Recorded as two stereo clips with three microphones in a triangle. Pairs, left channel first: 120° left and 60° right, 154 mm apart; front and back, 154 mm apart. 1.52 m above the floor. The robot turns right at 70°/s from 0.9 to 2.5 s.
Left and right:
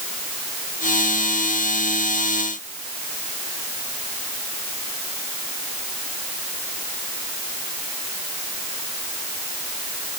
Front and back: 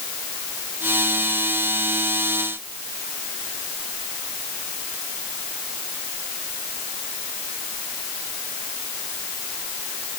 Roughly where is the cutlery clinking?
I don't hear cutlery clinking.